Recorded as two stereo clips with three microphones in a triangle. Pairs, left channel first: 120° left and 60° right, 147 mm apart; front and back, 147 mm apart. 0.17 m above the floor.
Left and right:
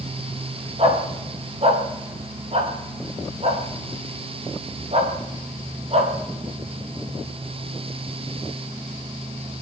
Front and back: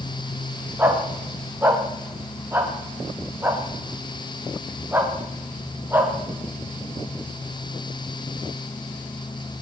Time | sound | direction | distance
0.8 | a dog barking | 105° right | 8.5 m